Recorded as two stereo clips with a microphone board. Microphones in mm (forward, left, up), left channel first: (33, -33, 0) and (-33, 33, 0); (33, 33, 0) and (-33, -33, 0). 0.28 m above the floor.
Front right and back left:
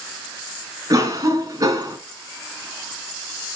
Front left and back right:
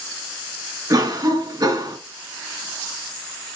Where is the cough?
175° right, 3.5 m.